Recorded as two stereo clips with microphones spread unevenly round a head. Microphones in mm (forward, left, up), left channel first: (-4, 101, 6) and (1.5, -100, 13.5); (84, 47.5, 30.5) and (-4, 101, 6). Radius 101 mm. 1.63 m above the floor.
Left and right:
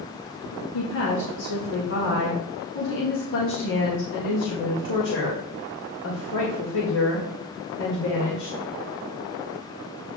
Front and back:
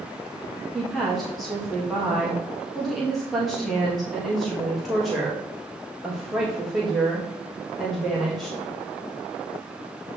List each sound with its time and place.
0.7 s a woman speaking: 60° left, 1.7 m